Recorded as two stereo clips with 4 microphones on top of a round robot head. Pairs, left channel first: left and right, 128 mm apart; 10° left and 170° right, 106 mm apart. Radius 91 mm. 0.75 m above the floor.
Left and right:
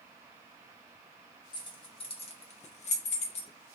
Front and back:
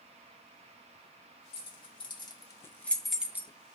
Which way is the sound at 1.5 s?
35° left.